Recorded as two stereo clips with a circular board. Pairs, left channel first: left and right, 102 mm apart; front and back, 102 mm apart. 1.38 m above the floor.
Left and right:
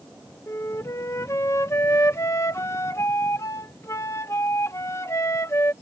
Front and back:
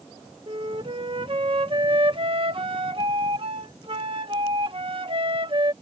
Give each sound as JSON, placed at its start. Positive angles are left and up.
{"t": 0.5, "sound": "a flute", "azimuth_deg": 150}